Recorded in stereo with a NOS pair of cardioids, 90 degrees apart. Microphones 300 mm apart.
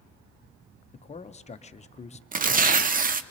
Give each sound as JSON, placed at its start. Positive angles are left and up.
{"t": 0.9, "sound": "a man speaking", "azimuth_deg": 20, "distance_m": 0.7}
{"t": 2.3, "sound": "tearing paper", "azimuth_deg": -30, "distance_m": 0.6}